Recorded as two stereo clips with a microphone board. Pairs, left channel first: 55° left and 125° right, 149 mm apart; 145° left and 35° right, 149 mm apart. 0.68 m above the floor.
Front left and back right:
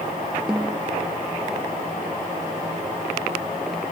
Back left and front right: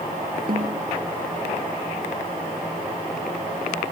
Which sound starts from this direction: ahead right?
A snare drum, at 0.5 s.